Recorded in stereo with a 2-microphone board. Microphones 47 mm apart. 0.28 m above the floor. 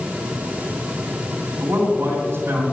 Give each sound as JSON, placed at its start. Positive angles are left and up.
{"t": 1.6, "sound": "a man speaking", "side_deg": -55, "distance_m": 2.5}